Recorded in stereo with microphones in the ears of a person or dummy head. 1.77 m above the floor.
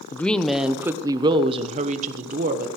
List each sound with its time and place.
0.1 s a woman speaking: 15° left (ahead or behind), 1.0 m; by 2.7 s 50° right (ahead or behind), 1.6 m